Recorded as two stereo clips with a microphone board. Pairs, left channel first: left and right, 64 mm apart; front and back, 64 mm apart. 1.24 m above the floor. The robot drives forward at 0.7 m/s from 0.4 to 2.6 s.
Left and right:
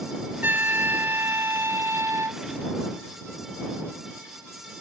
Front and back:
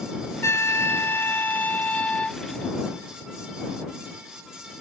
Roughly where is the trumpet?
Ahead right.